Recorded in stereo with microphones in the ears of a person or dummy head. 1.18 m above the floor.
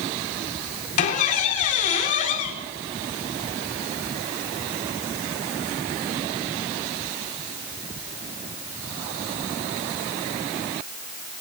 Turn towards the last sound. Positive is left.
turn(degrees=45)  # may be behind; listen again after turning